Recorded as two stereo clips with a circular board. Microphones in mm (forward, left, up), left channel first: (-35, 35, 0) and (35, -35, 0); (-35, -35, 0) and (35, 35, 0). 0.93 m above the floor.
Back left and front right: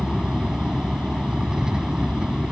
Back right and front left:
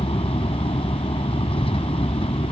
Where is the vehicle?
125° right.